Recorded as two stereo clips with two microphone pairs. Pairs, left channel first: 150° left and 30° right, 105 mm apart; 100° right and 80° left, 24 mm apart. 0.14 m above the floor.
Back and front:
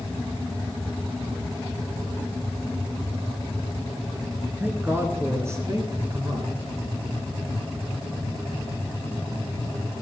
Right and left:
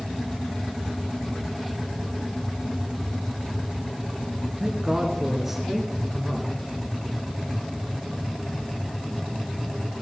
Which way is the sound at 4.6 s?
35° left.